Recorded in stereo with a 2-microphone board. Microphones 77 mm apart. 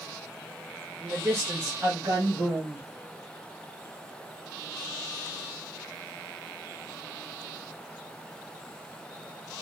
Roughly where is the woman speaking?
Right.